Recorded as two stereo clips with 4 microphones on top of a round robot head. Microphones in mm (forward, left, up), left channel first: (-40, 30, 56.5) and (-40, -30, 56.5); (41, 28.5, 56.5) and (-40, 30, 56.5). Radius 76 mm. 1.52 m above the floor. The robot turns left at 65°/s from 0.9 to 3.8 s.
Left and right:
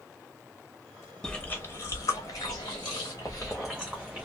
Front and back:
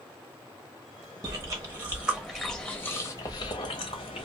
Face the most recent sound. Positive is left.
turn(degrees=-10)